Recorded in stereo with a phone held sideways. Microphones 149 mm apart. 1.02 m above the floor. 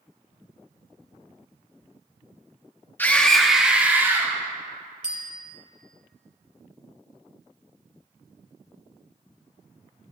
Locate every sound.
3.0 s a scream: 15° left (ahead or behind), 2 m; by 4.3 s 20° right (ahead or behind), 3.5 m
5.0 s a bicycle bell: 65° left (ahead or behind), 2.5 m